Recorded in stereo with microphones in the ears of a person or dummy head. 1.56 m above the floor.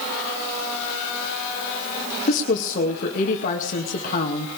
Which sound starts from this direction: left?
A woman speaking, at 2.3 s.